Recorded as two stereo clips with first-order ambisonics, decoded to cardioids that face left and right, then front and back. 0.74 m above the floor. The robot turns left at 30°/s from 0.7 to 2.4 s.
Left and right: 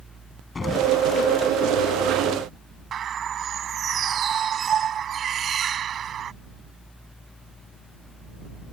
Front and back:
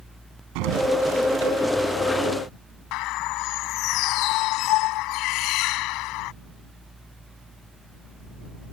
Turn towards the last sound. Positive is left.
turn(degrees=-30)